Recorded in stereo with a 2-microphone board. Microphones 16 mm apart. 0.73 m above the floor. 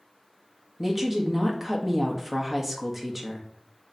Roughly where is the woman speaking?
Centre.